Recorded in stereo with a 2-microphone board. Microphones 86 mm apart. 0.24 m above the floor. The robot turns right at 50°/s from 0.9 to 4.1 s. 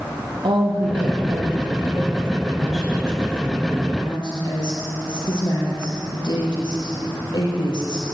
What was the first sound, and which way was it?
A woman speaking, 100° right.